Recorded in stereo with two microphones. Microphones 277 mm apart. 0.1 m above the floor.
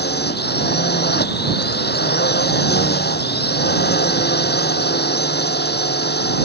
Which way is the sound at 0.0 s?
35° left (ahead or behind).